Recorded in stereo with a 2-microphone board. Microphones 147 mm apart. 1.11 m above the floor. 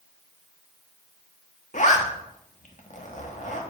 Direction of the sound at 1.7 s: 55° left (ahead or behind).